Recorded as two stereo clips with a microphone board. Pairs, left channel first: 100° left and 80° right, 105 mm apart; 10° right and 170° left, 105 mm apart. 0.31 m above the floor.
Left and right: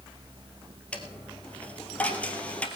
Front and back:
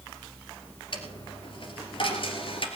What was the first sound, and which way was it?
A dropped coin, 25° left.